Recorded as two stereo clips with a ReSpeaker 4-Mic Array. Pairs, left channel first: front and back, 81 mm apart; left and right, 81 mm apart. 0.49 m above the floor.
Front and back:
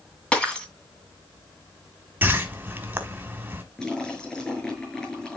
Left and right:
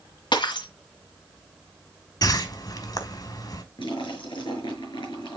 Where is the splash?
80° left, 7 m.